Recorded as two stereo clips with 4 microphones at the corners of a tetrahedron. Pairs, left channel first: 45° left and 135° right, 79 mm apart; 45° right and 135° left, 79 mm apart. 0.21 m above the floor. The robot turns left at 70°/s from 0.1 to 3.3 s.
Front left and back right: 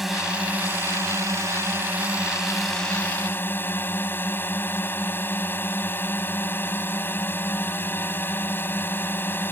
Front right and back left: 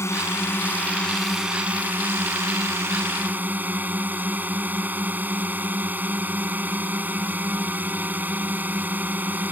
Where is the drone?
50° right; by 9.5 s 85° left.